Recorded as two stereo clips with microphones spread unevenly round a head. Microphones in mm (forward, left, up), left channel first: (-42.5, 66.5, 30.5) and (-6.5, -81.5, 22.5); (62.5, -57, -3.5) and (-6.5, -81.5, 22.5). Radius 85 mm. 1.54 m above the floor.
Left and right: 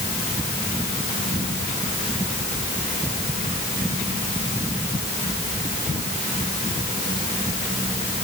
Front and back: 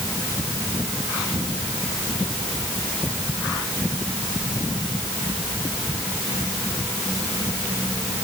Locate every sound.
Only background noise.